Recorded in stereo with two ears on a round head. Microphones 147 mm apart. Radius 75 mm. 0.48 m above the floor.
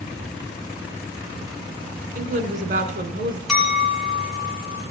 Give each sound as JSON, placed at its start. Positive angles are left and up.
{"t": 2.1, "sound": "a woman speaking", "side_deg": -45, "distance_m": 1.7}
{"t": 3.5, "sound": "a clink", "side_deg": 0, "distance_m": 4.0}